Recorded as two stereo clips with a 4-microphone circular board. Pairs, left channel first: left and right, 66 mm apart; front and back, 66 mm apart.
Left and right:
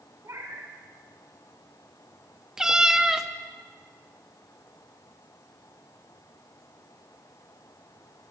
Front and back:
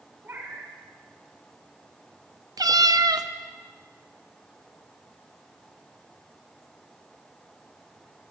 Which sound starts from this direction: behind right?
A cat meowing, at 0.2 s.